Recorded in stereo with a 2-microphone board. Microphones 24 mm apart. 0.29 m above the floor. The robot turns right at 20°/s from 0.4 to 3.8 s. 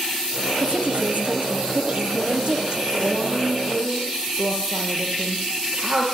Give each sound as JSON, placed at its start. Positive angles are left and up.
{"t": 0.6, "sound": "a woman speaking", "azimuth_deg": -90, "distance_m": 6.5}
{"t": 3.0, "sound": "a woman speaking", "side_deg": -60, "distance_m": 9.5}